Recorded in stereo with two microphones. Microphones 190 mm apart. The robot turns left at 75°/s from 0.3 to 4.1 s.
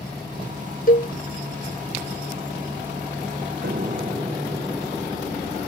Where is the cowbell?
50° left (ahead or behind); by 1.1 s 35° left (ahead or behind).